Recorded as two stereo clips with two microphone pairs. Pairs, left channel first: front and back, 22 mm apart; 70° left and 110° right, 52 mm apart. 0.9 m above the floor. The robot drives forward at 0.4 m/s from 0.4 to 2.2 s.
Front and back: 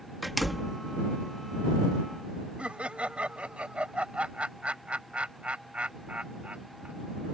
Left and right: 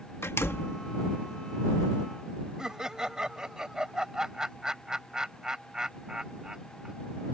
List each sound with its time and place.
0.2 s a door slam: 95° left; by 0.8 s 105° left
2.6 s laughter: 175° left